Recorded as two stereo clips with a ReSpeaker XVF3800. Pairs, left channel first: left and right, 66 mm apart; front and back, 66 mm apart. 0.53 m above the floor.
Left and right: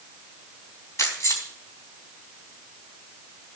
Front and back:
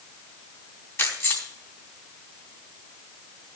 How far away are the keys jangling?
About 3.5 m.